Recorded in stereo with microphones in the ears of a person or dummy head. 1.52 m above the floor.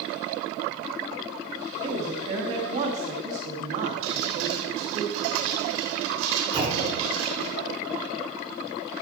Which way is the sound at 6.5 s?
25° right (ahead or behind).